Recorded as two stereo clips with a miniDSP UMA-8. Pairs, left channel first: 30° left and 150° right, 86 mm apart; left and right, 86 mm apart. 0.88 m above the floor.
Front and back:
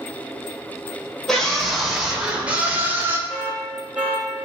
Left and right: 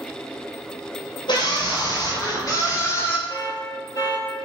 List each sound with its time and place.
1.3 s a scream: 115° left, 3.5 m; by 3.2 s 150° left, 2.5 m
3.3 s an alarm: 135° left, 3 m